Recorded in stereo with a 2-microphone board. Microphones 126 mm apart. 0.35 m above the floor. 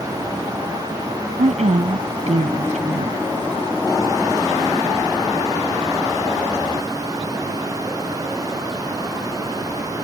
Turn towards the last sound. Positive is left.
turn(degrees=-70)  # may be behind; listen again after turning